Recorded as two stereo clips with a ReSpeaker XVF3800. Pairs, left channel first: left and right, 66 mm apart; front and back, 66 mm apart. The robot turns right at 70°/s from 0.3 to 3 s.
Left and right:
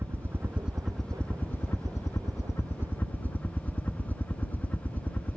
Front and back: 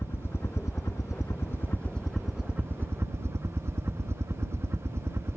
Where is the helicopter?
45° right; by 5.4 s 145° left.